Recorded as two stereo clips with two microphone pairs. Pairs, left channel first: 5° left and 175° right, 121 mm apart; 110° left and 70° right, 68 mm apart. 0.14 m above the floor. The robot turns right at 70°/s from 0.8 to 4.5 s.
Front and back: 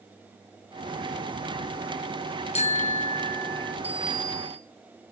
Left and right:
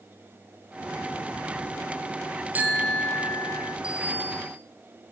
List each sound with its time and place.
2.5 s a bicycle bell: 10° right, 2 m; by 3.8 s 75° left, 2 m
3.8 s a bicycle bell: 145° right, 4.5 m; by 4.6 s 100° right, 4.5 m